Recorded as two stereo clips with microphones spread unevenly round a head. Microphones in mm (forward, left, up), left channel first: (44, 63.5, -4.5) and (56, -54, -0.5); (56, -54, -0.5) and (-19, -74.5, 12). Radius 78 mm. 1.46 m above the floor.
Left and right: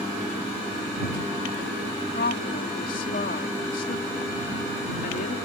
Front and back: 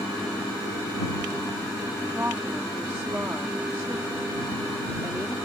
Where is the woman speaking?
120° left.